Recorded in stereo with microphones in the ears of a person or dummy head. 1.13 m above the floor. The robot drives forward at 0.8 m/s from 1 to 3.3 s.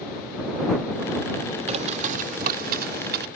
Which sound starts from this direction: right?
A bird, at 1.7 s.